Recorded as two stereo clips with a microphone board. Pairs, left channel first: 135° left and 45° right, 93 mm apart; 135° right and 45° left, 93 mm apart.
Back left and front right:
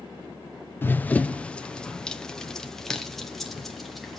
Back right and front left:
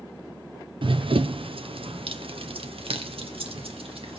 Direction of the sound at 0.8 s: 70° left.